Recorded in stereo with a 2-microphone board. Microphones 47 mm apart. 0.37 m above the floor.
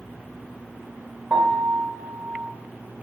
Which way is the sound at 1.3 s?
25° right (ahead or behind).